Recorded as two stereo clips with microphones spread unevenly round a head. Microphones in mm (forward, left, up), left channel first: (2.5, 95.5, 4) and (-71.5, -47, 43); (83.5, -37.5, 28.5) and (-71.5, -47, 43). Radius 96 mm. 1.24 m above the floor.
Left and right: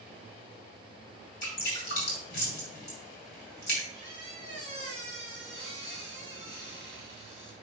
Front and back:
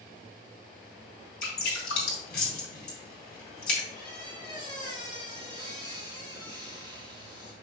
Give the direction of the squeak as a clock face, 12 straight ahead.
9 o'clock.